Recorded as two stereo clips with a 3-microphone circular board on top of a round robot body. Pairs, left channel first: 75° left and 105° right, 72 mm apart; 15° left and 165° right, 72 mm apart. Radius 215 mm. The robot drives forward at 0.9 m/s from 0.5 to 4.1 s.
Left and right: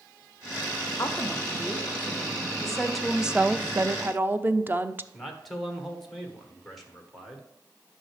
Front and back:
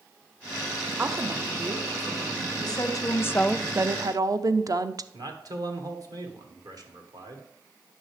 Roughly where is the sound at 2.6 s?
Ahead.